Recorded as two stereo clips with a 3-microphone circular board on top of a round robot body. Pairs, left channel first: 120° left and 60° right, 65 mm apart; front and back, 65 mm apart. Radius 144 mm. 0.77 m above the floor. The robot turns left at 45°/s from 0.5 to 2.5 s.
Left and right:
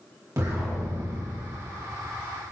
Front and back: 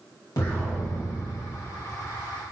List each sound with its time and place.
0.4 s an explosion: 25° right, 2.5 m; by 1.5 s 65° right, 2.5 m